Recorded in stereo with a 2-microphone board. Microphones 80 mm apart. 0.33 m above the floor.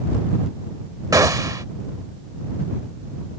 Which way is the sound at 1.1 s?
45° right (ahead or behind).